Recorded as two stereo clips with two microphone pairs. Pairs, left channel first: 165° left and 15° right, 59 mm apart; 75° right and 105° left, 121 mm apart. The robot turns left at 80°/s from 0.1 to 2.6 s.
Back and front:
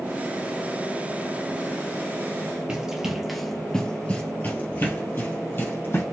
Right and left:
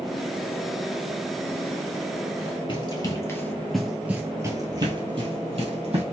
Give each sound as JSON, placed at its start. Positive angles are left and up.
{"t": 2.7, "sound": "running footsteps", "azimuth_deg": -80, "distance_m": 1.7}